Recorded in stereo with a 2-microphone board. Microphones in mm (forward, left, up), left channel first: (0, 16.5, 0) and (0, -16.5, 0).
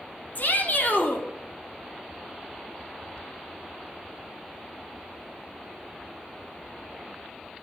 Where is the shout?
50° left (ahead or behind), 3 m.